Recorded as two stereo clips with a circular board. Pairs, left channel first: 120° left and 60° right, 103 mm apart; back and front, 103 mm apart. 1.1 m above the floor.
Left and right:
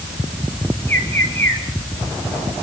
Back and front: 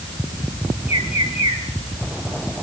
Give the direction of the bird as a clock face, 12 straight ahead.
6 o'clock.